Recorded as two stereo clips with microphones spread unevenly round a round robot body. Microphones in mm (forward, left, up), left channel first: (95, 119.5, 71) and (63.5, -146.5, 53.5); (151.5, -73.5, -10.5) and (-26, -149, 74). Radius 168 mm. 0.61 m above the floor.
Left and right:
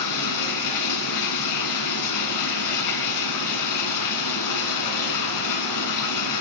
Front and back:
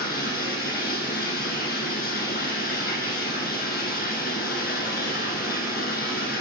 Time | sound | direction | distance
0.0 | running water | 95° left | 1.0 m